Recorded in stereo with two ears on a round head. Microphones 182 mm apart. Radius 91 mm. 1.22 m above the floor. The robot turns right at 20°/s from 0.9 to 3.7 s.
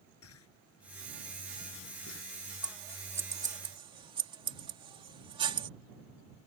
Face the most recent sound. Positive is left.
turn(degrees=-25)  # may be behind; listen again after turning